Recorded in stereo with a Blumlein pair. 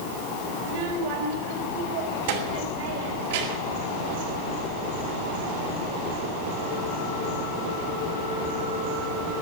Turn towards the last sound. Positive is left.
turn(degrees=-55)